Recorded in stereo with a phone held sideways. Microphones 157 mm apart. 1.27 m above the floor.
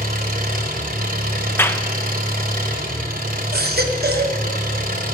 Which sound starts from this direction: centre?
A clap, at 1.6 s.